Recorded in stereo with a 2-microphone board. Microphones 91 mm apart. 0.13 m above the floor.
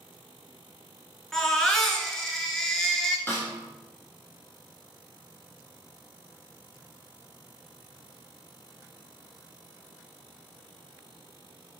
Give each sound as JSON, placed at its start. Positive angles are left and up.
{"t": 1.3, "sound": "a baby crying", "side_deg": 5, "distance_m": 0.7}
{"t": 3.3, "sound": "a snare drum", "side_deg": 25, "distance_m": 1.3}